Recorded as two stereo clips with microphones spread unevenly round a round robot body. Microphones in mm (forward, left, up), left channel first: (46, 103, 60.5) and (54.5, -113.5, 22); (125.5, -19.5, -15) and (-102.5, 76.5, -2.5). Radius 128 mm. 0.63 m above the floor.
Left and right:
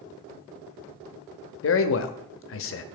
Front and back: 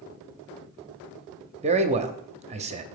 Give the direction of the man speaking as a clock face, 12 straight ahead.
9 o'clock.